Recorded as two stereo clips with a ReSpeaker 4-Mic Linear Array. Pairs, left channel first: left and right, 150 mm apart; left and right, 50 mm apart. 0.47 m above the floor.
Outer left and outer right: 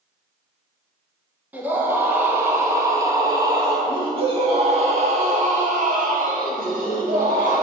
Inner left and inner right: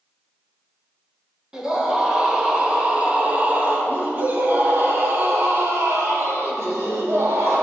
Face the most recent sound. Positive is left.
turn(degrees=-70)  # may be behind; listen again after turning